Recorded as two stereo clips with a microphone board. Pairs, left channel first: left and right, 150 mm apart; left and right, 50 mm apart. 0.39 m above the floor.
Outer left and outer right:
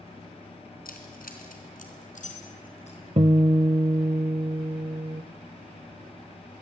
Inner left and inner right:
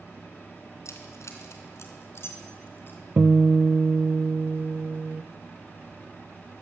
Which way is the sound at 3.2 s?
40° right (ahead or behind).